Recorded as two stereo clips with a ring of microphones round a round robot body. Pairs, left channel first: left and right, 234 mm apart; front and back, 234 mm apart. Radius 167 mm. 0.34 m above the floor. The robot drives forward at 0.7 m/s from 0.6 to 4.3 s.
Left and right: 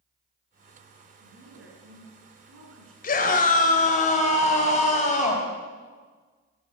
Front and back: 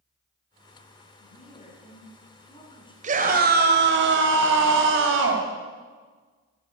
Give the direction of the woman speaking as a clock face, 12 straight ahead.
2 o'clock.